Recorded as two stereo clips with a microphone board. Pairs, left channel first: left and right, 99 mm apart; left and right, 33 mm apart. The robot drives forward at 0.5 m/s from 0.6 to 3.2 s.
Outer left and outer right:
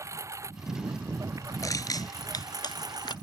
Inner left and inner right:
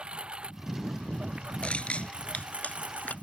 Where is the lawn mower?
30° right (ahead or behind); by 3.2 s 40° right (ahead or behind).